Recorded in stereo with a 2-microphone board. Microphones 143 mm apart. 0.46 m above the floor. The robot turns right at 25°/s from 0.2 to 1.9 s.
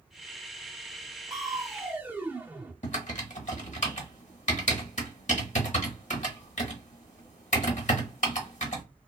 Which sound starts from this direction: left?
Typing on a keyboard, at 2.8 s.